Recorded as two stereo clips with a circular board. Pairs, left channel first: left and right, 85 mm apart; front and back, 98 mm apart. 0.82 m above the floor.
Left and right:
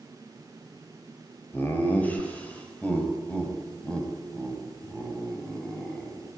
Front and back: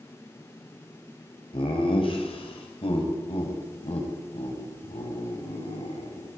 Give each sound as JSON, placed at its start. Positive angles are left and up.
{"t": 1.5, "sound": "laughter", "azimuth_deg": 20, "distance_m": 4.0}